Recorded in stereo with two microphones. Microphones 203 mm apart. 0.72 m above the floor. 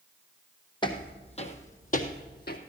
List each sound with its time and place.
0.8 s footsteps: 25° left (ahead or behind), 1.7 m; by 2.6 s 55° left (ahead or behind), 1.6 m